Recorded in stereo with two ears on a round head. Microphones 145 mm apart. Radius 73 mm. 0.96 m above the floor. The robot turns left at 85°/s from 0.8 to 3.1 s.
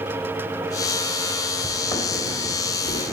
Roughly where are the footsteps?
Centre.